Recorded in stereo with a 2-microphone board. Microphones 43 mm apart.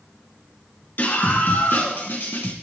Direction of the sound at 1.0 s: 50° left (ahead or behind).